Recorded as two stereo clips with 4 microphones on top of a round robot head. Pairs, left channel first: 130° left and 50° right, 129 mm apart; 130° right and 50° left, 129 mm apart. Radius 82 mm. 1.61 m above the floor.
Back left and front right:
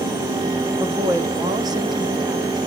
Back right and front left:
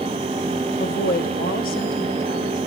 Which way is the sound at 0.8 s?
125° right.